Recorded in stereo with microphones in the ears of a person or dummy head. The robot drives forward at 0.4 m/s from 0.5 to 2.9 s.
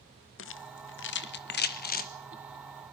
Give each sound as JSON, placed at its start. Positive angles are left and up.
{"t": 0.4, "sound": "a rattle", "side_deg": 60, "distance_m": 1.0}